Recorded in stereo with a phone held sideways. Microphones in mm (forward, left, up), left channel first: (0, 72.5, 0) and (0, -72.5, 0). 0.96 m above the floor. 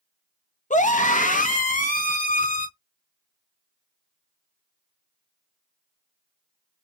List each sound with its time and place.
0.7 s a scream: 60° left (ahead or behind), 0.8 m; by 2.7 s 70° left (ahead or behind), 1.9 m